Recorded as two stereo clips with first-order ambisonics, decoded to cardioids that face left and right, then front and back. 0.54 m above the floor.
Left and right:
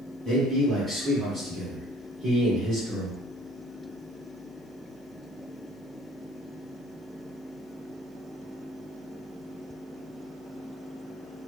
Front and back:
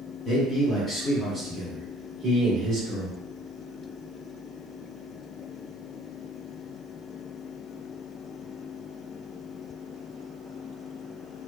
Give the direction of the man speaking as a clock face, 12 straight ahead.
12 o'clock.